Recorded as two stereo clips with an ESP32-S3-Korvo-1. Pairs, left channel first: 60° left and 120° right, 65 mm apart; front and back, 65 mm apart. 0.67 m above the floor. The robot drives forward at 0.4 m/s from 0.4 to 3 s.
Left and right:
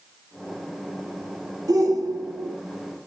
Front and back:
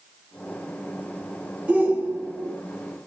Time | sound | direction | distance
1.7 | a shout | 110° right | 1.3 m